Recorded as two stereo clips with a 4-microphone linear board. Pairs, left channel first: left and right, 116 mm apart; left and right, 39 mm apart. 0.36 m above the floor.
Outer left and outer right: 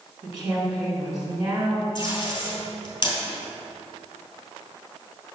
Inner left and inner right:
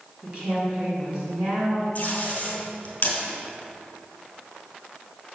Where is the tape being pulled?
40° left (ahead or behind), 2 m.